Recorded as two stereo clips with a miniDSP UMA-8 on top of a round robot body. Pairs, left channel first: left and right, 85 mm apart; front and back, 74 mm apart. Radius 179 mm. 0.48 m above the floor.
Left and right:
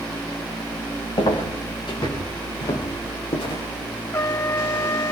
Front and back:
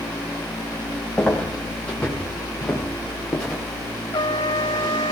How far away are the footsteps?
About 6.5 m.